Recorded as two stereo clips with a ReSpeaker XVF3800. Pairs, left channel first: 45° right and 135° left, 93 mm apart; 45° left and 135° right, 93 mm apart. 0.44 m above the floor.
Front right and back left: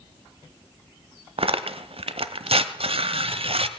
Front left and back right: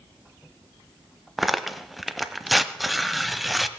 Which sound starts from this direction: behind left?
Tearing paper, at 1.4 s.